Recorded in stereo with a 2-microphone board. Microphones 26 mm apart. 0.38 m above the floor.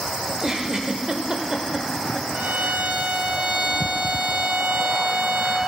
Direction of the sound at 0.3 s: 30° right (ahead or behind).